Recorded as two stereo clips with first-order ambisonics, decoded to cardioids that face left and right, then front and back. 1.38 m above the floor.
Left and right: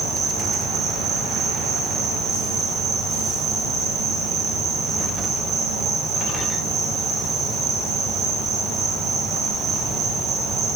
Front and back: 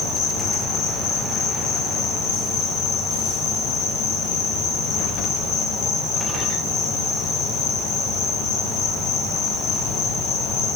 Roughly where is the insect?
Ahead right.